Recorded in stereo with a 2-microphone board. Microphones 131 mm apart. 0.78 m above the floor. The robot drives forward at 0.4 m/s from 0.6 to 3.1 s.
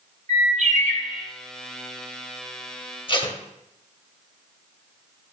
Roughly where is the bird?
Right.